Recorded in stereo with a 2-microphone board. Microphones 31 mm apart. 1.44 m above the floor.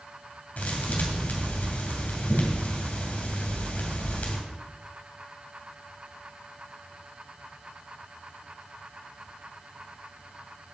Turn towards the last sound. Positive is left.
turn(degrees=65)  # may be behind; listen again after turning